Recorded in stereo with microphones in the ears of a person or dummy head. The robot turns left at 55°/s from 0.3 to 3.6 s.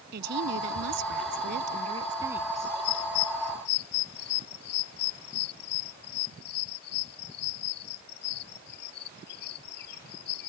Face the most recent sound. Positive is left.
turn(degrees=60)  # may be behind; listen again after turning